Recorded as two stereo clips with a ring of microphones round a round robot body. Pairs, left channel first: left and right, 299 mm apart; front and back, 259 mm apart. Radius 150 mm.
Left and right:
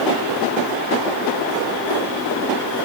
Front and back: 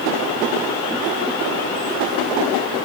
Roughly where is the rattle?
No rattle in this recording.